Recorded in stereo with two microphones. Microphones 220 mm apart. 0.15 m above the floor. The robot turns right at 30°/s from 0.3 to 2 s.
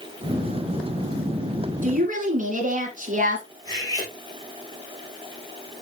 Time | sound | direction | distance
1.8 | a woman speaking | 35° right (ahead or behind) | 1.8 m
3.6 | cutlery clinking | 15° left (ahead or behind) | 4 m